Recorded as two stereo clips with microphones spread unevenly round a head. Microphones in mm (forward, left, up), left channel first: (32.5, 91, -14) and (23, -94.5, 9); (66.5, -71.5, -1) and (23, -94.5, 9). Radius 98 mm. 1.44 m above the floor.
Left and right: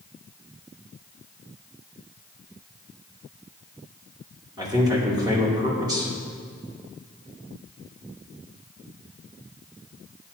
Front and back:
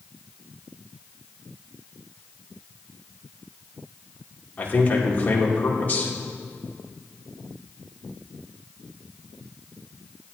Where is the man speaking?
25° right, 2.5 m.